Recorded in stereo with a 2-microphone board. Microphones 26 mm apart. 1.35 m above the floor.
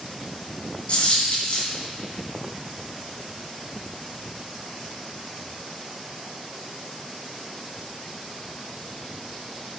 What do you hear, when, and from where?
0.9 s a dropped coin: 55° left (ahead or behind), 3.5 m